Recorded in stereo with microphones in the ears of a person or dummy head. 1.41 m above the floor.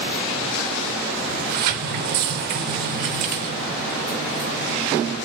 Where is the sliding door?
55° right (ahead or behind), 0.8 m.